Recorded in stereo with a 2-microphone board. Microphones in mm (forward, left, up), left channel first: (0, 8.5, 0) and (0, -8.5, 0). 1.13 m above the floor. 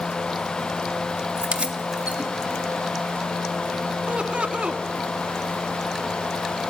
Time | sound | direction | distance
1.4 | keys jangling | 80° right | 2 m
4.1 | laughter | 80° right | 1.9 m